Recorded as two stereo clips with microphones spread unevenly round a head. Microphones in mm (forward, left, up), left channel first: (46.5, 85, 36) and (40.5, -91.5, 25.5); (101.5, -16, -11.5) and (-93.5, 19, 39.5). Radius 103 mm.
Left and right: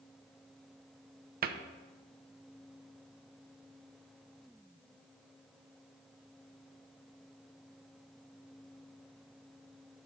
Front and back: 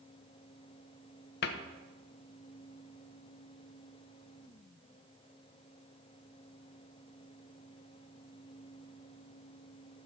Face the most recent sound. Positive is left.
turn(degrees=-55)